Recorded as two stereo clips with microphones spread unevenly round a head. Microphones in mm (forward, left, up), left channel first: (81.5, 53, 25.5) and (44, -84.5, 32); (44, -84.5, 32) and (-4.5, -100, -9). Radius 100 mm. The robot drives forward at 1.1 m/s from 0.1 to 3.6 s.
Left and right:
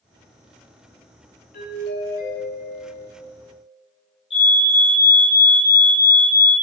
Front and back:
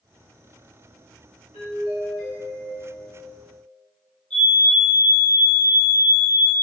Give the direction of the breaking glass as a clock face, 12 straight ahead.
No breaking glass in this recording.